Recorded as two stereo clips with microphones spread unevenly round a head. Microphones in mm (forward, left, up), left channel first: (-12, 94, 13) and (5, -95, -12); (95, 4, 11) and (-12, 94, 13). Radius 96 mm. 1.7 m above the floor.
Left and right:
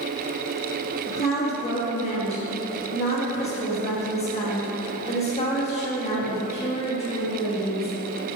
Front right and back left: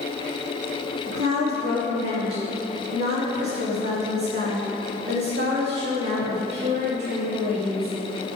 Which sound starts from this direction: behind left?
A woman speaking, at 1.1 s.